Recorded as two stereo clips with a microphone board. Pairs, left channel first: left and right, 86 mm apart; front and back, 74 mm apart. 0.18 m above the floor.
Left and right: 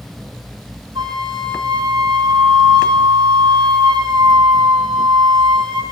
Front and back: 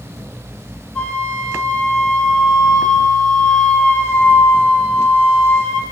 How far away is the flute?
About 6 m.